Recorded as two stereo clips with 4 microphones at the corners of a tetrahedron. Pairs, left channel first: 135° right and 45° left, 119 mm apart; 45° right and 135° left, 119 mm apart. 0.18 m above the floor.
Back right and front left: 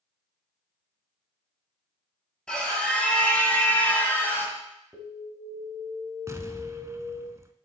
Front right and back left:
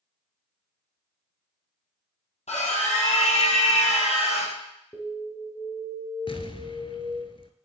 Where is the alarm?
Straight ahead, 2.5 m.